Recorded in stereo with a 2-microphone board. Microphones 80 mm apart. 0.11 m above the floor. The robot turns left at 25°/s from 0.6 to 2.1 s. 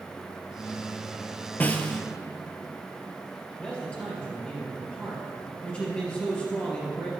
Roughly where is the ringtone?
No ringtone in this recording.